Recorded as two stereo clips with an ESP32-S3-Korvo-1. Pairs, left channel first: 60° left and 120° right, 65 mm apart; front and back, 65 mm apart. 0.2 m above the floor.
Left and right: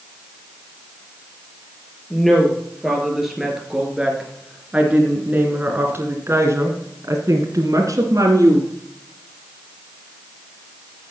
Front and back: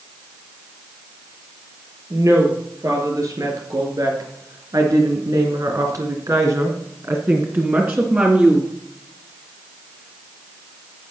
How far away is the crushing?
No crushing in this recording.